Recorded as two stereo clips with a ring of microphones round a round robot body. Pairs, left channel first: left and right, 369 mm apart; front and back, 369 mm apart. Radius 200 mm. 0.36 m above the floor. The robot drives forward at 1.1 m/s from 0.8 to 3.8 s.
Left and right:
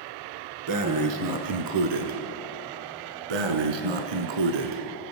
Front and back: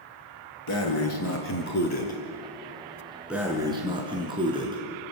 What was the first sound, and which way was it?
Breathing, 55° right.